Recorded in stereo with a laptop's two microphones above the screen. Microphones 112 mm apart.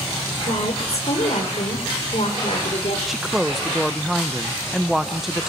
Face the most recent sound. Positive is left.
turn(degrees=0)  # may be behind; listen again after turning